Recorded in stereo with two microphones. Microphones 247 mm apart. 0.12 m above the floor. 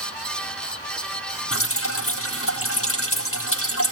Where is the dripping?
60° left (ahead or behind), 3.5 m.